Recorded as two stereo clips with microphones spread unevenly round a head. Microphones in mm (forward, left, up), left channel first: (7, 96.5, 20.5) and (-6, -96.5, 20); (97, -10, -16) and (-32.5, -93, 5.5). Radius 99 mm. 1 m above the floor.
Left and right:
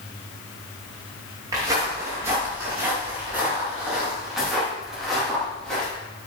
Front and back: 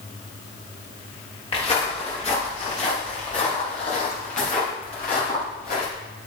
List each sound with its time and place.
1.5 s footsteps: 20° right, 6.5 m; by 5.9 s straight ahead, 7.5 m